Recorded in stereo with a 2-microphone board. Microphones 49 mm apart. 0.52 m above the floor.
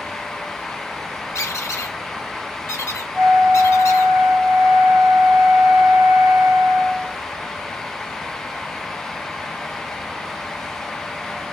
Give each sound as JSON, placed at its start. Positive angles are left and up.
{"t": 1.4, "sound": "a squeak", "side_deg": 75, "distance_m": 0.5}
{"t": 3.1, "sound": "a flute", "side_deg": -50, "distance_m": 1.4}